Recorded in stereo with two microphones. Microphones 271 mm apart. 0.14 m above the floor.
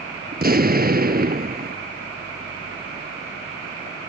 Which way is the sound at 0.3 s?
35° right (ahead or behind).